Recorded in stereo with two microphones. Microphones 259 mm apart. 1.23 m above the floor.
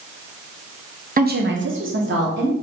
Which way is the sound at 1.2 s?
35° right (ahead or behind).